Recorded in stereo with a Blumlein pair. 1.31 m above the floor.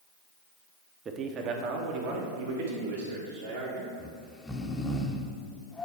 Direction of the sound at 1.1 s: 20° right.